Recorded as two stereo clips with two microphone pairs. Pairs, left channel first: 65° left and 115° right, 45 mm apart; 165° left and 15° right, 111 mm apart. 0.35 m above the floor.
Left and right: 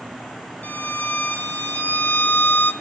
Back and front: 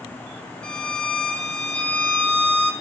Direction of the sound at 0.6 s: 90° left.